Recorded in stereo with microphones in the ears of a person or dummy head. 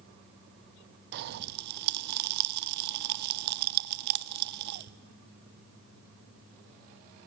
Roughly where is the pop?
Right.